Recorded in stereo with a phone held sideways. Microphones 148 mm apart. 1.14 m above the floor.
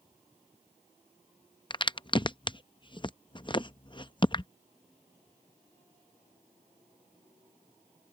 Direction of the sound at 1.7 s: 35° left (ahead or behind).